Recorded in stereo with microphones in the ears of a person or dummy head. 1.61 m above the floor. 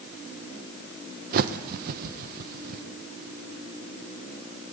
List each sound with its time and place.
1.3 s a bird: 55° right (ahead or behind), 1.1 m